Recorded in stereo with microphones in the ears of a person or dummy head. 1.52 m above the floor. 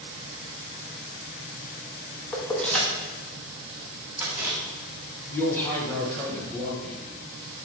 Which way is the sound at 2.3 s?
10° left (ahead or behind).